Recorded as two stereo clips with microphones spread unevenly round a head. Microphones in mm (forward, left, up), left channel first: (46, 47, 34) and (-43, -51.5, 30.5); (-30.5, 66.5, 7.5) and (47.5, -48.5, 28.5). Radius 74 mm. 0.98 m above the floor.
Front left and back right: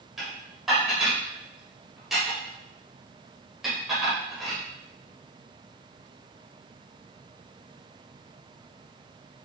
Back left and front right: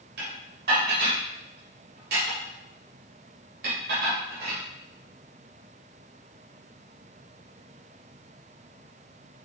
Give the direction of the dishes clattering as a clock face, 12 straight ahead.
1 o'clock.